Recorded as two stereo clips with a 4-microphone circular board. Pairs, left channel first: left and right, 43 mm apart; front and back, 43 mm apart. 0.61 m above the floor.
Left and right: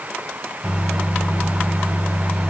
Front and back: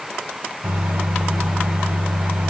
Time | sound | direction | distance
0.6 | a microwave | 175° right | 1.5 m